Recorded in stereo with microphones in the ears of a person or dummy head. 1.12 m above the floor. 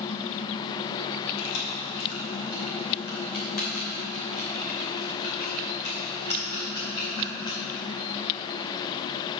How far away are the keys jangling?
About 2.5 m.